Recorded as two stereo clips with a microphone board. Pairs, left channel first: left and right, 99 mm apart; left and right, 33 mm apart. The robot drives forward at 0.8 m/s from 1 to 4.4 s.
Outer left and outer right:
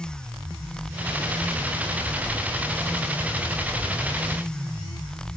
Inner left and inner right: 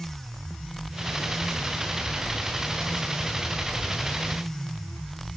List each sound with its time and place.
Only background noise.